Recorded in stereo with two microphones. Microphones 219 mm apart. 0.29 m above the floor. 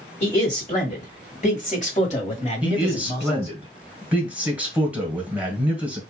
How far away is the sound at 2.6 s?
About 1.7 m.